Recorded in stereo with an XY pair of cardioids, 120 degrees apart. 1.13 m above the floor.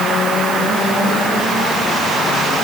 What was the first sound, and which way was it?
Only background noise.